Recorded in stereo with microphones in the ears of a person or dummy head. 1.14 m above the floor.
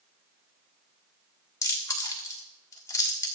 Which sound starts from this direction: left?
Chewing, at 1.6 s.